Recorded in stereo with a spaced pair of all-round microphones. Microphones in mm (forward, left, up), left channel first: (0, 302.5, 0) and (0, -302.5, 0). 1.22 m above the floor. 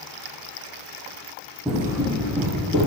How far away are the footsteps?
About 1.3 m.